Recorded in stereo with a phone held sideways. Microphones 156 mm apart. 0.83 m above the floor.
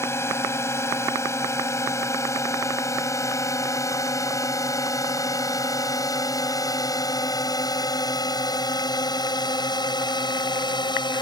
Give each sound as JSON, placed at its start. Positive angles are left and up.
{"t": 0.0, "sound": "a drone", "side_deg": 15}